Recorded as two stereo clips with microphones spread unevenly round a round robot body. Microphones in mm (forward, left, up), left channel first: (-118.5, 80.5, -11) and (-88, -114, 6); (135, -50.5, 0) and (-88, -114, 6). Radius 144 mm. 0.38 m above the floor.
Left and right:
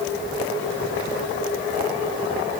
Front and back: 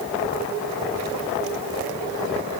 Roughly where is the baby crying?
No baby crying in this recording.